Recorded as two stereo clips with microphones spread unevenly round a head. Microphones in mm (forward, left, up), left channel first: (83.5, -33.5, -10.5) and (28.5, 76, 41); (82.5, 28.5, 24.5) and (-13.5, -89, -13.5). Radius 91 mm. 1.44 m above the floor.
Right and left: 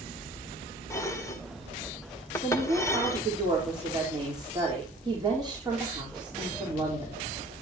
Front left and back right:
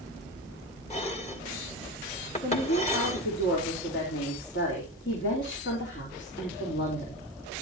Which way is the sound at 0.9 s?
10° left.